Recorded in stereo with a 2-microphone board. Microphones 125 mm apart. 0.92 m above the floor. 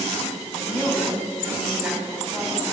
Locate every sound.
0.5 s a woman speaking: 5° left (ahead or behind), 6 m; by 2.6 s 10° right (ahead or behind), 6.5 m